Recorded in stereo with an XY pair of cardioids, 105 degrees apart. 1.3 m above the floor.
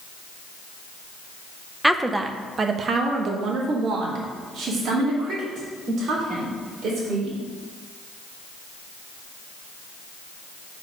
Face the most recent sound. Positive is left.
turn(degrees=-75)